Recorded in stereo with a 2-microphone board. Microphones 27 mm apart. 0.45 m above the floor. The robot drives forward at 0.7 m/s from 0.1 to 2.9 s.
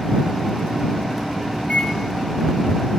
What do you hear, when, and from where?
1.6 s a microwave: 35° left (ahead or behind), 6.5 m; by 1.9 s 40° left (ahead or behind), 6 m